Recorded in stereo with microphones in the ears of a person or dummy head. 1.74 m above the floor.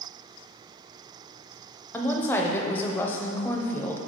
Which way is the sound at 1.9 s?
15° left (ahead or behind).